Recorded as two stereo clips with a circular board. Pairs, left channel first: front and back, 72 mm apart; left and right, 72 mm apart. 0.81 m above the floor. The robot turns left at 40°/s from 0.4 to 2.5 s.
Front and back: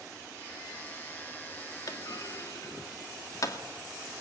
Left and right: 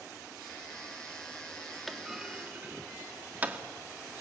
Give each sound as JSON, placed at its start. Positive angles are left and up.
{"t": 1.9, "sound": "a clunk", "azimuth_deg": 0, "distance_m": 2.0}